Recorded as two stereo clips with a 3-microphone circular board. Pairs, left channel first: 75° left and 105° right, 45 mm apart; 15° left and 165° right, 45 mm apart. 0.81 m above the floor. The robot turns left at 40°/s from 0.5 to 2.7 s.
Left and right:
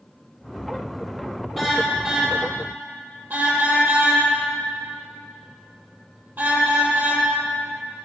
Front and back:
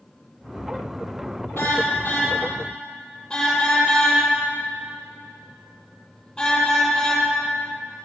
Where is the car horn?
15° right, 9.5 m; by 7.2 s 60° right, 9.5 m.